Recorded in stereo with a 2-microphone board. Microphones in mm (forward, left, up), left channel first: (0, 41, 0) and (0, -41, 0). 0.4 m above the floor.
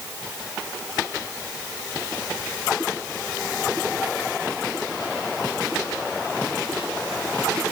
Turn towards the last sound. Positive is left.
No sound to turn to.